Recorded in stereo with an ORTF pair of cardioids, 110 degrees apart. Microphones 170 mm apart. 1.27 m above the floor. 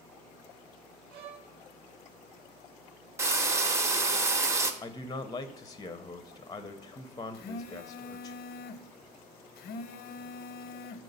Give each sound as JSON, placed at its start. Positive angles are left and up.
{"t": 1.1, "sound": "a violin", "azimuth_deg": -65, "distance_m": 0.9}
{"t": 3.2, "sound": "frying", "azimuth_deg": -15, "distance_m": 0.7}
{"t": 4.8, "sound": "a man speaking", "azimuth_deg": 20, "distance_m": 0.5}
{"t": 7.3, "sound": "a phone buzzing", "azimuth_deg": 65, "distance_m": 0.6}